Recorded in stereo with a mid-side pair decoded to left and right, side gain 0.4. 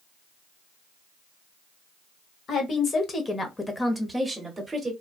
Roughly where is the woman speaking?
Ahead left.